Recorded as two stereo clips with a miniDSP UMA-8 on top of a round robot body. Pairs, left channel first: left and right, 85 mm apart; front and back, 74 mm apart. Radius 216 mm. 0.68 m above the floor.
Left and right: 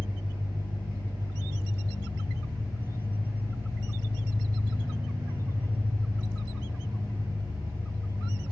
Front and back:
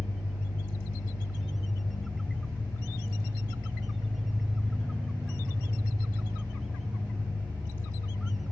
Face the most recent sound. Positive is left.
turn(degrees=-160)